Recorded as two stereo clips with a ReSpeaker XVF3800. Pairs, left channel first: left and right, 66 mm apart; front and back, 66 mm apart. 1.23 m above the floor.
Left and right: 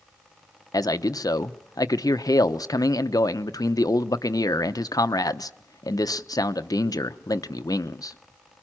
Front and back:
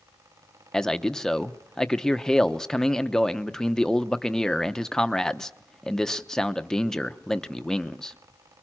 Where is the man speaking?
80° left, 0.8 m.